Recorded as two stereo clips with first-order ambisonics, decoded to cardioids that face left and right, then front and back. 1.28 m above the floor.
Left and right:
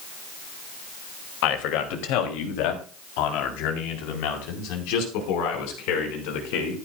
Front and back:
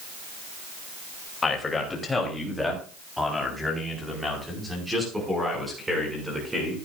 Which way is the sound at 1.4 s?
75° left.